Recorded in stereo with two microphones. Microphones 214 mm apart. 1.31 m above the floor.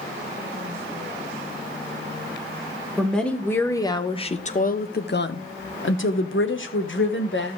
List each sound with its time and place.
3.0 s a woman speaking: centre (ahead or behind), 1.2 m; by 7.6 s 60° left (ahead or behind), 1.6 m